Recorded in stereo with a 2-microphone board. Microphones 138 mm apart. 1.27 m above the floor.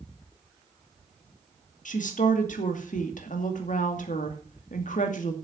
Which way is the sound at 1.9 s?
70° left (ahead or behind).